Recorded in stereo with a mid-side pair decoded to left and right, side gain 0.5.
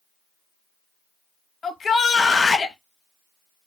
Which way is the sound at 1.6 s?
40° left.